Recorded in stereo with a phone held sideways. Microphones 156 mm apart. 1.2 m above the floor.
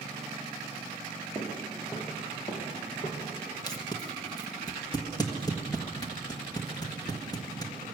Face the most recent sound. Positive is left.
turn(degrees=25)  # may be behind; listen again after turning